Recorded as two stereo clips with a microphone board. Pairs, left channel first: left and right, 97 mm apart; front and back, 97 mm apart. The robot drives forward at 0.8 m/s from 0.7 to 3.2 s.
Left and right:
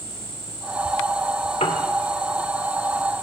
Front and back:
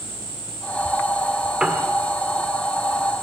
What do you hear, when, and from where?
1.6 s a piano: 100° left, 2.0 m; by 1.9 s 105° left, 2 m